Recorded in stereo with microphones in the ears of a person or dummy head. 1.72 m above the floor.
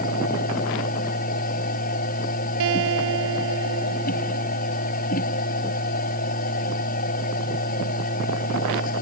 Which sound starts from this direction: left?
A machine running, at 0.0 s.